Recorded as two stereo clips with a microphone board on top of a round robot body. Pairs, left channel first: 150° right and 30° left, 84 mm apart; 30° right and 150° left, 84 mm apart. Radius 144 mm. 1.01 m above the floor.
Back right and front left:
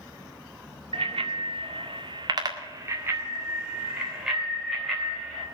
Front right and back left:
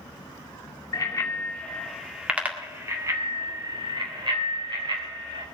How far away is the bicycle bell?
About 2 m.